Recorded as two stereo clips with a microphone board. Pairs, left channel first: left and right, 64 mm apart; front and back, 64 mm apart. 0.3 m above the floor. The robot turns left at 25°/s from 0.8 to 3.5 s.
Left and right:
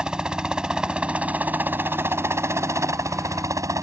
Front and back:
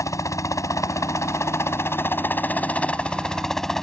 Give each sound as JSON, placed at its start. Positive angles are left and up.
{"t": 0.0, "sound": "a helicopter", "azimuth_deg": -15}